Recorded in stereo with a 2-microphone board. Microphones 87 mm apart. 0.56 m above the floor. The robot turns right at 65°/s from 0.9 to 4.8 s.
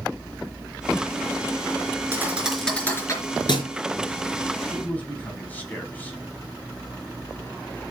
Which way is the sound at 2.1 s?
30° right (ahead or behind).